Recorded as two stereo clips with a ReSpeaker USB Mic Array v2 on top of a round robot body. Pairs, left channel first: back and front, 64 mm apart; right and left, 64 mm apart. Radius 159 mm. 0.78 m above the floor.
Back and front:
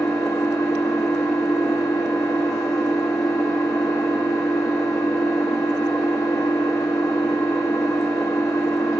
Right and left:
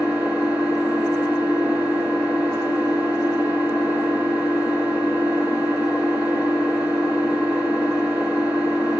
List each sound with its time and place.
0.0 s an engine running: 160° left, 2.5 m